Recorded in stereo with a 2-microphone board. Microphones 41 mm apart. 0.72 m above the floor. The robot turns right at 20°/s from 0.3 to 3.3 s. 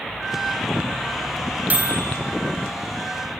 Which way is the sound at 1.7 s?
45° right (ahead or behind).